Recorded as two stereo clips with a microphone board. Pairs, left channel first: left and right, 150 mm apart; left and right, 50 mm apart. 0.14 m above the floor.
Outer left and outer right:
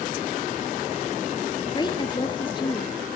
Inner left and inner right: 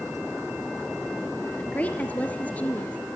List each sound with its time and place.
1.6 s a woman speaking: 30° left (ahead or behind), 3 m